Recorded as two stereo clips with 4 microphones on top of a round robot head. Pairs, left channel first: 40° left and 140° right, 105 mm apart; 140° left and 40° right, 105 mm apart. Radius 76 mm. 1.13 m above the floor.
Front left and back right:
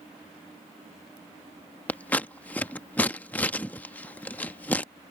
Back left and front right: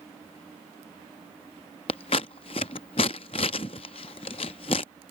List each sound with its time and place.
1.9 s scissors: 110° left